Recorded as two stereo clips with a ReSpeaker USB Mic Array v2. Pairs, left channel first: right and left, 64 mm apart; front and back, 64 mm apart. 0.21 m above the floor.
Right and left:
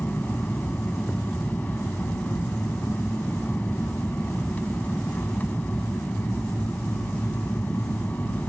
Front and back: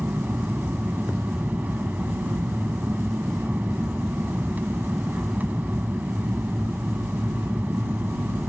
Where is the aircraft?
140° right.